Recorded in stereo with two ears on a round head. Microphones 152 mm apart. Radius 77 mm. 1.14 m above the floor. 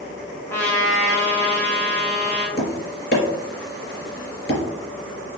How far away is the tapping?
About 3 m.